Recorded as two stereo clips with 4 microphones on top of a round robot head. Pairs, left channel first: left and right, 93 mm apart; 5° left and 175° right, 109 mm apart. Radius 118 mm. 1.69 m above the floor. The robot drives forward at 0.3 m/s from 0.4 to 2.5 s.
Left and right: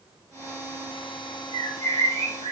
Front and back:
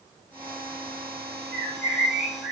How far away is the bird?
About 1.2 m.